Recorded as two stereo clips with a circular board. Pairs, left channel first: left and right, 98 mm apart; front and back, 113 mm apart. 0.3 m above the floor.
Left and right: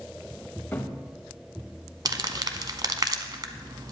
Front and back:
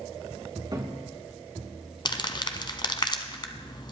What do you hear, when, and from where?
0.7 s a cupboard door: 150° left, 1.2 m
2.0 s crumpling: 45° right, 1.0 m